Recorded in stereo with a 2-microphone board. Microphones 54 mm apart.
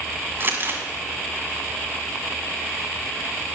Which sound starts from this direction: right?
Crumpling, at 0.4 s.